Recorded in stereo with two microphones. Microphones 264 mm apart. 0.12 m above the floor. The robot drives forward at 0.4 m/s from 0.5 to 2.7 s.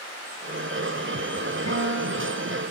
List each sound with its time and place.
1.7 s a guitar: 80° right, 5.5 m; by 2.6 s 85° right, 5.5 m